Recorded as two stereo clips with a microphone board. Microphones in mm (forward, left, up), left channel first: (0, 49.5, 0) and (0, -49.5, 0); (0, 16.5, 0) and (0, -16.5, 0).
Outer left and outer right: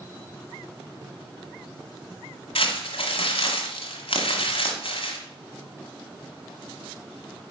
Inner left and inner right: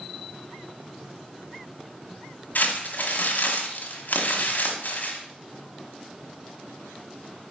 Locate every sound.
2.5 s crumpling: 70° left (ahead or behind), 1.2 m